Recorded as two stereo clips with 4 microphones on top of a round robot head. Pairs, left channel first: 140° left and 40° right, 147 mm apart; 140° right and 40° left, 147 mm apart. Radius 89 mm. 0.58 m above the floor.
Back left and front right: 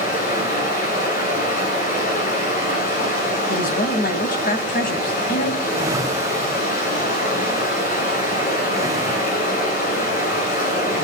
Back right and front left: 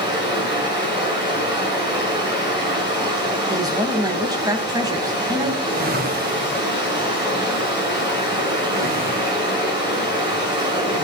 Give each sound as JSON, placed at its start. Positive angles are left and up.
{"t": 0.0, "sound": "running water", "azimuth_deg": 105, "distance_m": 7.5}
{"t": 3.5, "sound": "a woman speaking", "azimuth_deg": 110, "distance_m": 3.5}
{"t": 5.6, "sound": "a whoosh", "azimuth_deg": 25, "distance_m": 2.0}